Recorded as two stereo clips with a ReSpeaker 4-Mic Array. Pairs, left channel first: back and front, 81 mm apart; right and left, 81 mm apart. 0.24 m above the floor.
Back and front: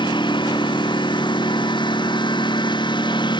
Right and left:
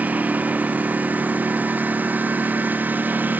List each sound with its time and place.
0.0 s a lawn mower: 160° left